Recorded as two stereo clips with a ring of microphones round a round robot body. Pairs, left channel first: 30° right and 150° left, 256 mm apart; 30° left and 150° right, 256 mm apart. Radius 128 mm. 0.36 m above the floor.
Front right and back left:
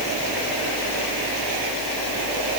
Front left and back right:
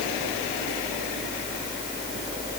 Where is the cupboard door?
I don't hear a cupboard door.